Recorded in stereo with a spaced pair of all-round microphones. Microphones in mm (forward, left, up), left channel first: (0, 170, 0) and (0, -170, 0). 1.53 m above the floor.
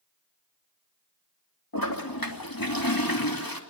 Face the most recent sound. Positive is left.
turn(degrees=80)